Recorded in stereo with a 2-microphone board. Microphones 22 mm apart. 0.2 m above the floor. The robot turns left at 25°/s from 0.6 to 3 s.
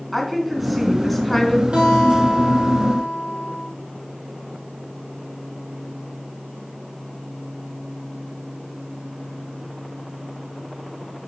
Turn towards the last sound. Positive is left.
turn(degrees=-135)